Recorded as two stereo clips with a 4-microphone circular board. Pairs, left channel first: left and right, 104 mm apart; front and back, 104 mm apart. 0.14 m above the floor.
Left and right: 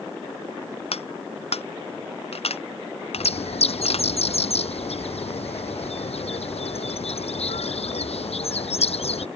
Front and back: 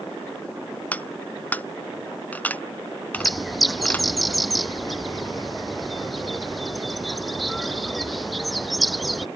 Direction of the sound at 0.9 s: 75° left.